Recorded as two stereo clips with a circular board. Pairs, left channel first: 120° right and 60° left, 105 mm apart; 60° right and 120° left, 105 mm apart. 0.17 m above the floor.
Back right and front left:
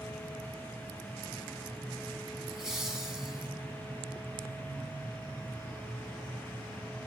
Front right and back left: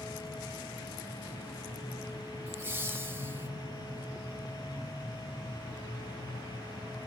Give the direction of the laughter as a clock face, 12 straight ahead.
7 o'clock.